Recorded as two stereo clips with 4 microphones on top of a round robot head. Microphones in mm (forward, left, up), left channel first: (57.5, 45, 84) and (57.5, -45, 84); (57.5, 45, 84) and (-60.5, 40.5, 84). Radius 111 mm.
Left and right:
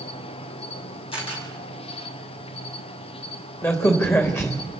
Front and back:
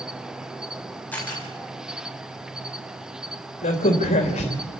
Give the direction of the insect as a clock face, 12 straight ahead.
9 o'clock.